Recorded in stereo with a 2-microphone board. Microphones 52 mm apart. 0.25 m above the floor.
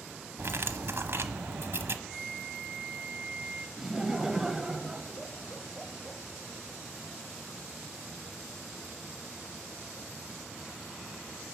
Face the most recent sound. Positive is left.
turn(degrees=-10)  # may be behind; listen again after turning